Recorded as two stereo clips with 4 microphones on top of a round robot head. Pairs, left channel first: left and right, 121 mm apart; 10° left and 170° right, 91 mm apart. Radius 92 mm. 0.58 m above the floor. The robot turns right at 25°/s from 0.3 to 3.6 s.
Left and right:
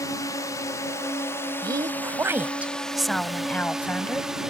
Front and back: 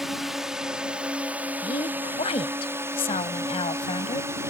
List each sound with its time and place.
0.0 s a drone: 105° left; by 4.5 s 170° right
1.6 s a woman speaking: 35° right; by 4.3 s 15° left